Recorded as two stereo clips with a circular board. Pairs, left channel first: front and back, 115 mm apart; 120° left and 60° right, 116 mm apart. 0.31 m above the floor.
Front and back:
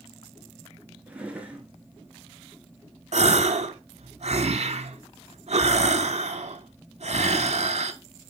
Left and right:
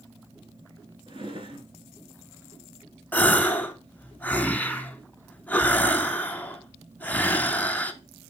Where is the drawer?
100° right, 1.2 m.